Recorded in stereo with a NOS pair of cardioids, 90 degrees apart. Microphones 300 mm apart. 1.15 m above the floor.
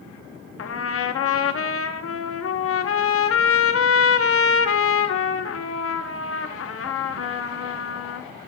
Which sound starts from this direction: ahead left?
A trumpet, at 0.6 s.